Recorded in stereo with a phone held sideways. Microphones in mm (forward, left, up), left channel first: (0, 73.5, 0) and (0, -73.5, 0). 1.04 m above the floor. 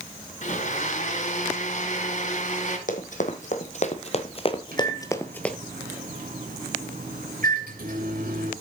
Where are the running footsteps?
60° left (ahead or behind), 2 m; by 5.5 s 5° left (ahead or behind), 1.0 m.